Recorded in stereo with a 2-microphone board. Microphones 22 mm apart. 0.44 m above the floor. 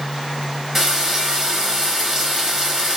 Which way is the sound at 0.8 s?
20° right (ahead or behind).